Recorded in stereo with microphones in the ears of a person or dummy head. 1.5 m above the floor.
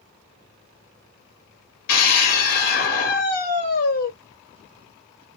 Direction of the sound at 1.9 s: 55° left (ahead or behind).